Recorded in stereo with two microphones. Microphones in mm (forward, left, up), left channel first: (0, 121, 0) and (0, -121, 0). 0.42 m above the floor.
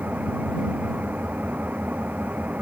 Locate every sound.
0.0 s an engine running: 5° right (ahead or behind)